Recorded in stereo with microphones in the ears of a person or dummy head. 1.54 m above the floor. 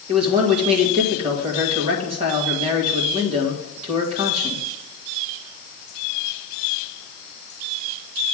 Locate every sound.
0.1 s a man speaking: 35° right (ahead or behind), 1.5 m